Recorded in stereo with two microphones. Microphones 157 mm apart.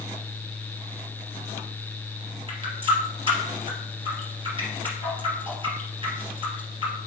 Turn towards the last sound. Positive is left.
turn(degrees=-35)  # may be behind; listen again after turning